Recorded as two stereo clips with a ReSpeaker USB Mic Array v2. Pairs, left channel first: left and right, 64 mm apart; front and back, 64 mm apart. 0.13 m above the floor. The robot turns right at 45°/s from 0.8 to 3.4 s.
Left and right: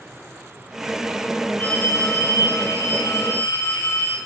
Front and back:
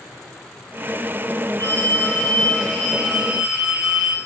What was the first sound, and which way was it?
A phone ringing, 30° left.